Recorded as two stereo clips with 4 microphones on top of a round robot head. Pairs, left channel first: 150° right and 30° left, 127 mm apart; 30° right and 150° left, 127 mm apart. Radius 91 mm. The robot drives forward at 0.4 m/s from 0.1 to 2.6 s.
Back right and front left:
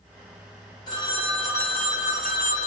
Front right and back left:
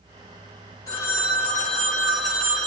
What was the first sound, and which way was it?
A phone ringing, 95° right.